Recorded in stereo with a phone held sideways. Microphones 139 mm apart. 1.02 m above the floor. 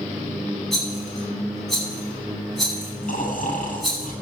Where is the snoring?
75° left (ahead or behind), 7.5 m.